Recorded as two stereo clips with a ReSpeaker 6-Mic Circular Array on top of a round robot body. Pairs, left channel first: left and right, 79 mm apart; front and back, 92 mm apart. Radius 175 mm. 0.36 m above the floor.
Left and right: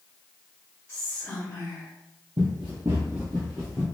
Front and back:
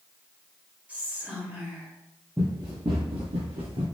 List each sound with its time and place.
0.9 s whispering: 125° left, 1.4 m
2.4 s running footsteps: 90° right, 0.5 m; by 3.9 s straight behind, 1.3 m